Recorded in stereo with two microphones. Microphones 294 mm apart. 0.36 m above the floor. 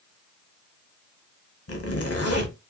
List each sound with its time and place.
1.7 s a zipper: 50° left (ahead or behind), 0.7 m